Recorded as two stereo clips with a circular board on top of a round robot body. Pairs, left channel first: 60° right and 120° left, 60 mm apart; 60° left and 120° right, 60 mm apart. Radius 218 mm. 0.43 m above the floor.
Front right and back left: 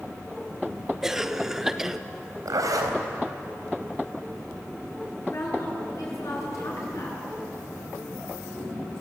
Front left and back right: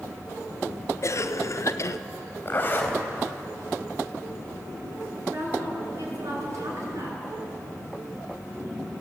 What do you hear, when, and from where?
1.0 s a cough: 40° left, 1.1 m
2.5 s a zipper: 120° left, 4 m
5.3 s a woman speaking: 90° right, 7 m